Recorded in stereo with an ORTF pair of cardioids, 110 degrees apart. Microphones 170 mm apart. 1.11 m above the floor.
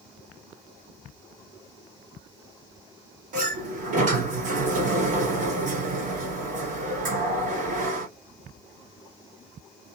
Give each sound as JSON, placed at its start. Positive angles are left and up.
{"t": 3.3, "sound": "a sliding door", "azimuth_deg": -50, "distance_m": 1.7}